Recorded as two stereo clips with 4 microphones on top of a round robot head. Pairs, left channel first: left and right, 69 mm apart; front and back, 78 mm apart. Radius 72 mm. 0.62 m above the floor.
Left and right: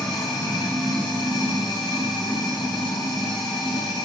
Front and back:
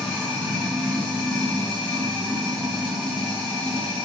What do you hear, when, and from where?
0.0 s running water: 85° left, 1.7 m